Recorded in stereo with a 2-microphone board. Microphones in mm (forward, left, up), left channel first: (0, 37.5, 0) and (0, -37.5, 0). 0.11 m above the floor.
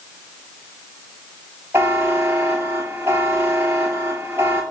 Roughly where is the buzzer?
Right.